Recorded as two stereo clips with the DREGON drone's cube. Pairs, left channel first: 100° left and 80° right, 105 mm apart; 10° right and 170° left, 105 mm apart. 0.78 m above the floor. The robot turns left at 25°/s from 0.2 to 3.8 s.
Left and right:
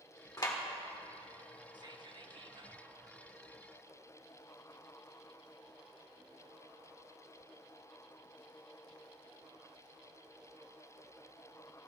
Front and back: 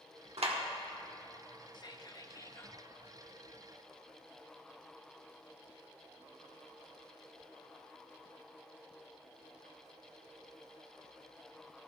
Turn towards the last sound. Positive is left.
turn(degrees=-100)